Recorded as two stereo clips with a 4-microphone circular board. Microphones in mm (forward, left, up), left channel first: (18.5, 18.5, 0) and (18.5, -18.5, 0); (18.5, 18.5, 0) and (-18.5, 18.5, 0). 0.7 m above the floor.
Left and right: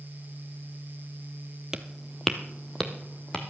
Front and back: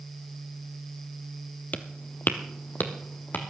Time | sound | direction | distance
1.7 | footsteps | 20° right | 1.0 m